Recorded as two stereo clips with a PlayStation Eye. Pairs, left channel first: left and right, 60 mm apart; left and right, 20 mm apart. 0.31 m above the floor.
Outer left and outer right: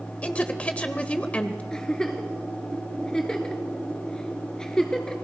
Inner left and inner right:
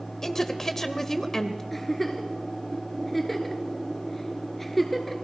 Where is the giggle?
10° left (ahead or behind), 1.6 m.